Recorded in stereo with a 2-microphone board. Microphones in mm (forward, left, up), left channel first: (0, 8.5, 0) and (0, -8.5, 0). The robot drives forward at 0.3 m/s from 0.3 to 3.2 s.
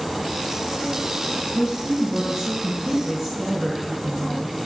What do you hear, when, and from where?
1.5 s a woman speaking: 30° right (ahead or behind), 1.3 m